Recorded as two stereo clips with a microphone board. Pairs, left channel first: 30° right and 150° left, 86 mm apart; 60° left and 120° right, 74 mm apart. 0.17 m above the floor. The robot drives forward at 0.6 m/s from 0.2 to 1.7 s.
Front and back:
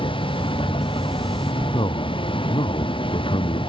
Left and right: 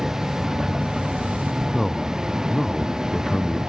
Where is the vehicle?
35° right.